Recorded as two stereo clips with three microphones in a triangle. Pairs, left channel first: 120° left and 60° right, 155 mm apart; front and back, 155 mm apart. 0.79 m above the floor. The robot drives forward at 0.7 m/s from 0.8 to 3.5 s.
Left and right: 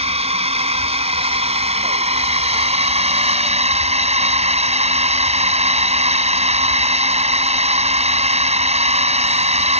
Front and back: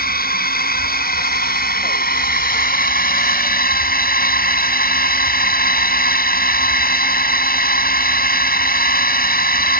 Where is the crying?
No crying in this recording.